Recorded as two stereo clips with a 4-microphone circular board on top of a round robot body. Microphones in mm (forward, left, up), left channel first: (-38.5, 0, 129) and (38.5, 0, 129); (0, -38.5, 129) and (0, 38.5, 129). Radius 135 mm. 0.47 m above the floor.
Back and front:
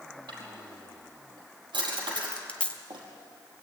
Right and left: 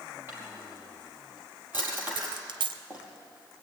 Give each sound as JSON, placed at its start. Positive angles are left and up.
{"t": 0.3, "sound": "a drawer", "azimuth_deg": 25, "distance_m": 5.0}
{"t": 2.2, "sound": "a dropped coin", "azimuth_deg": 105, "distance_m": 1.1}